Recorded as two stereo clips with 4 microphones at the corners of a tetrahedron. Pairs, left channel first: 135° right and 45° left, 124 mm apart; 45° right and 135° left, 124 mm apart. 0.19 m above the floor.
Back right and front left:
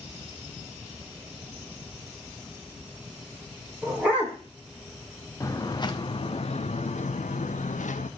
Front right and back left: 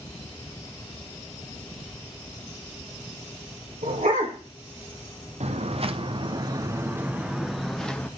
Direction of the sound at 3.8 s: 125° left.